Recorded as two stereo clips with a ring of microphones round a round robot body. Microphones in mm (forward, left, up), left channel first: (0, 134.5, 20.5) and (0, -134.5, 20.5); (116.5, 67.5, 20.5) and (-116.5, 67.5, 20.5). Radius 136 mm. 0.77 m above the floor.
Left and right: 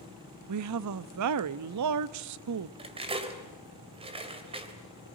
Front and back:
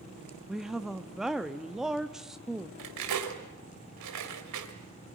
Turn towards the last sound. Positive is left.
turn(degrees=-160)